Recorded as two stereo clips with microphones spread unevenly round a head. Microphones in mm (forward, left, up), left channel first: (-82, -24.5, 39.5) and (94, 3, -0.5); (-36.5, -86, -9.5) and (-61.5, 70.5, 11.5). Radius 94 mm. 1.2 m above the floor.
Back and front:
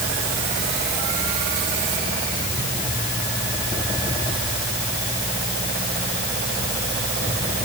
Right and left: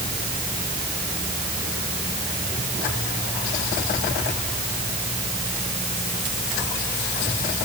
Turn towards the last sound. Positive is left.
No sound to turn to.